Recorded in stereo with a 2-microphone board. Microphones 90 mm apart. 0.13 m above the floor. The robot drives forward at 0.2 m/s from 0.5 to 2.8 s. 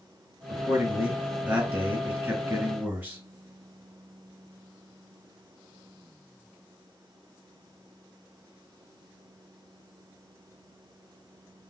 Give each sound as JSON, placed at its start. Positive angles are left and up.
{"t": 0.5, "sound": "a man speaking", "side_deg": -25, "distance_m": 1.4}